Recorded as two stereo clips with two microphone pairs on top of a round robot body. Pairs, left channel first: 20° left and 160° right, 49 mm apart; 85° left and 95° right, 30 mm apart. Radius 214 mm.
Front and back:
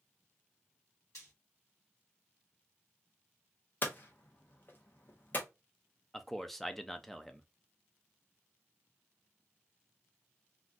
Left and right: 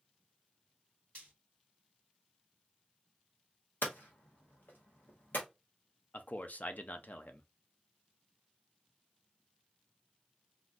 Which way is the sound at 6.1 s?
105° left.